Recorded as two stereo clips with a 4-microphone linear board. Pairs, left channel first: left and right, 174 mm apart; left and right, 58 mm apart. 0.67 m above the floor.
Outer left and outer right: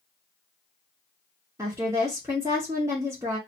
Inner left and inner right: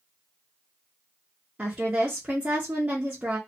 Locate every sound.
1.6 s a woman speaking: 15° right (ahead or behind), 0.9 m